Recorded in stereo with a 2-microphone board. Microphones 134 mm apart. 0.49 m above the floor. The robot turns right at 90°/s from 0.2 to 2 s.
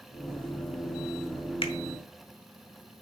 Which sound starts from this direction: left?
A finger snap, at 1.6 s.